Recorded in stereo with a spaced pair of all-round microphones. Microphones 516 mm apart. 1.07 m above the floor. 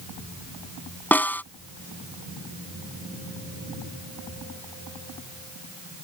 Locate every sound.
1.1 s a snare drum: 5° left (ahead or behind)